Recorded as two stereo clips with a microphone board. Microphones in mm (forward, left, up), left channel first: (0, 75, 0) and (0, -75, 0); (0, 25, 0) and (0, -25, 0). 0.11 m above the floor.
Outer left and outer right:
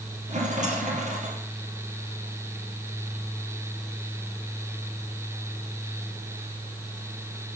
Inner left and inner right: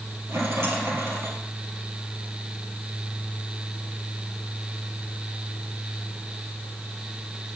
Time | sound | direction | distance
0.3 | a rattle | 55° right (ahead or behind) | 2 m